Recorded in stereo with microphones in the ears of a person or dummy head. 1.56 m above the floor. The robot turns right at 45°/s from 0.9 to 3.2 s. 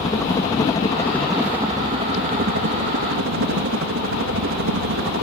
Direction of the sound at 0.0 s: 170° left.